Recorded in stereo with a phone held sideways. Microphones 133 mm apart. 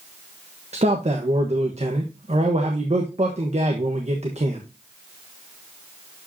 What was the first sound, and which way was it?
A man speaking, 55° right (ahead or behind).